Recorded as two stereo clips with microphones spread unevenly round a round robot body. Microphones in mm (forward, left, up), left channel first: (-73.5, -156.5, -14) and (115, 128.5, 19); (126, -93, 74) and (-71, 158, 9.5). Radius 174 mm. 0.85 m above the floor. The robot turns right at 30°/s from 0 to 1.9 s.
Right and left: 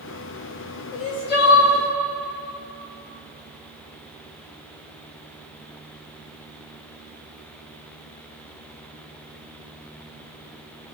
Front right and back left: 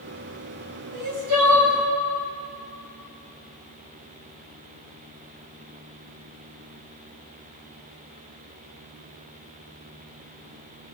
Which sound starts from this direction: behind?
Crying, at 0.9 s.